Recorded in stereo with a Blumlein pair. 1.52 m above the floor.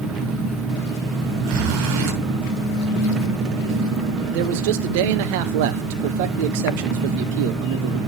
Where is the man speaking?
50° right, 0.9 m.